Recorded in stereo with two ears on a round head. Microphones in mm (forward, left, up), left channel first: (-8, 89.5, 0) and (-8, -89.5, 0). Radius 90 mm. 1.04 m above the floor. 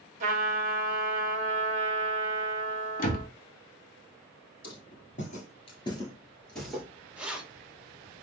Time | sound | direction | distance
0.2 | a trumpet | 40° right (ahead or behind) | 0.7 m
3.0 | a door slam | 45° left (ahead or behind) | 0.6 m
4.6 | footsteps | 45° left (ahead or behind) | 1.5 m
7.2 | keys jangling | 5° right (ahead or behind) | 0.7 m